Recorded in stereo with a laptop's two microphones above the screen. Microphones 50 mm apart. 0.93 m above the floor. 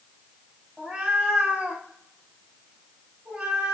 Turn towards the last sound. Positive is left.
turn(degrees=-15)  # may be behind; listen again after turning